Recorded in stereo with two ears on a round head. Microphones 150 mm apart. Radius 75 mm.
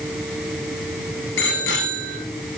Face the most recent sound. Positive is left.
turn(degrees=75)  # may be behind; listen again after turning